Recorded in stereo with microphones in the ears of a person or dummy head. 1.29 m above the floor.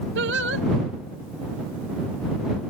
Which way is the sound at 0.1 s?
65° right (ahead or behind).